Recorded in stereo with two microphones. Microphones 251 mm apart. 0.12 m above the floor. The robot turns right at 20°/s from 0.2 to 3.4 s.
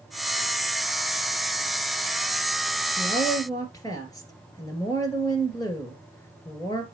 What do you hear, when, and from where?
3.0 s a woman speaking: 20° left (ahead or behind), 2.5 m; by 6.8 s 15° left (ahead or behind), 2.5 m